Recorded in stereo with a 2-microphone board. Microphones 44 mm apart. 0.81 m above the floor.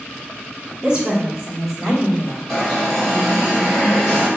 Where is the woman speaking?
30° right (ahead or behind), 1.5 m; by 2.4 s 5° left (ahead or behind), 2.5 m.